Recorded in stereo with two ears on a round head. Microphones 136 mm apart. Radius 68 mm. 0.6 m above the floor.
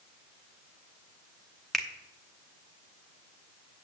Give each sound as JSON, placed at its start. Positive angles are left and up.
{"t": 1.7, "sound": "a finger snap", "side_deg": 0, "distance_m": 1.0}